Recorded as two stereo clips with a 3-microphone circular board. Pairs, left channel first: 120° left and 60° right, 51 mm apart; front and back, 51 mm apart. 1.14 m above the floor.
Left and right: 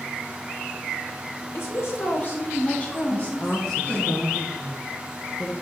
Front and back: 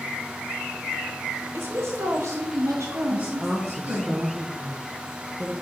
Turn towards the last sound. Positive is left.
turn(degrees=150)